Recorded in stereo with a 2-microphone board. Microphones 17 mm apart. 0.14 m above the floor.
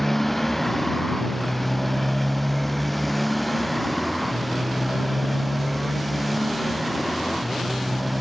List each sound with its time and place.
0.0 s a motorcycle: 10° left (ahead or behind); by 8.2 s 5° right (ahead or behind)